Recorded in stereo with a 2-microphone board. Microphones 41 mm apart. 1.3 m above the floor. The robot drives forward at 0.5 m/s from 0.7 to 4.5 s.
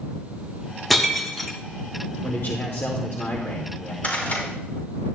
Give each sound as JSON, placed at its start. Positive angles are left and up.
{"t": 0.9, "sound": "breaking glass", "side_deg": 5, "distance_m": 1.2}
{"t": 2.2, "sound": "a man speaking", "side_deg": 55, "distance_m": 1.0}
{"t": 4.0, "sound": "a rattle", "side_deg": 40, "distance_m": 4.0}